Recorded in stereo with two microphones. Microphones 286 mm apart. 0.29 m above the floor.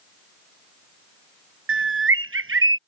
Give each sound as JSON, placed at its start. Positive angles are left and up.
{"t": 1.7, "sound": "a bird", "side_deg": -50}